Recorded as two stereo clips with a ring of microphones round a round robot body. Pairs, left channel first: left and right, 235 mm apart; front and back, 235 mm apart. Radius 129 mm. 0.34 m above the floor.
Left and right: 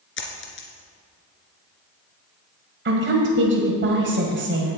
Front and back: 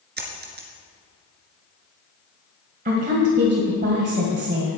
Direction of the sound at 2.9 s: 125° right.